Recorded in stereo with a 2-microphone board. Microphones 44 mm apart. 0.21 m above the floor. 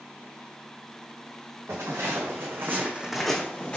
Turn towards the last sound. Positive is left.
turn(degrees=35)  # may be behind; listen again after turning